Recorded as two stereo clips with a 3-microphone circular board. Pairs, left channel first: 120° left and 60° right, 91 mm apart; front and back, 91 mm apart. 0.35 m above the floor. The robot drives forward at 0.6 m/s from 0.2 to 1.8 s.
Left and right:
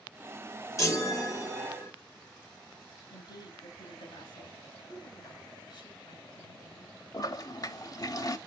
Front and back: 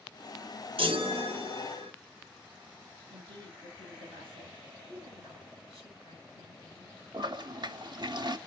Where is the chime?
175° left, 1.2 m.